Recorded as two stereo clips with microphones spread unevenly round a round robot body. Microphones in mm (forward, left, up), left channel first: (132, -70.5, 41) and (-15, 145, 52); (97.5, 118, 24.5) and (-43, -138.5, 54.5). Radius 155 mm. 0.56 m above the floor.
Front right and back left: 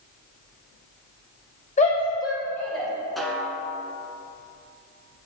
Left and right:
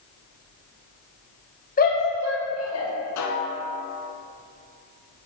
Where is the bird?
I don't hear a bird.